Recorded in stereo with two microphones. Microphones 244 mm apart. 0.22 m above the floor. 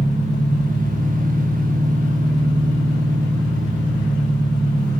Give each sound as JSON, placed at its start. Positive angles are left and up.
{"t": 0.0, "sound": "an engine running", "side_deg": -30, "distance_m": 1.1}